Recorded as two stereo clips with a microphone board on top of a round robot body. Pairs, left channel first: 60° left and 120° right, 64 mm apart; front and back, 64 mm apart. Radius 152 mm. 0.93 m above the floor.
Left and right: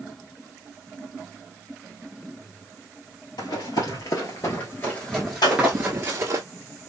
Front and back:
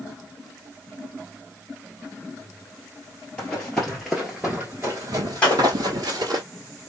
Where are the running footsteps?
75° left, 1.4 m; by 6.4 s 170° right, 1.2 m.